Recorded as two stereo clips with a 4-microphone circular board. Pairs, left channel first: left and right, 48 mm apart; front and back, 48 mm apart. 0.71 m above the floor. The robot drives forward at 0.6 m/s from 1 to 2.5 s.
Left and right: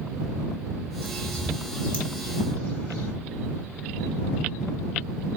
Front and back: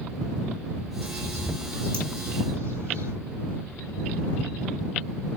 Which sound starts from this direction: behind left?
A bird, at 1.0 s.